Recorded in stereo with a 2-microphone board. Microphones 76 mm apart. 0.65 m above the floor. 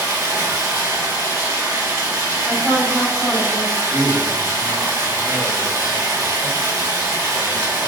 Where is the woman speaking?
25° right (ahead or behind), 0.9 m.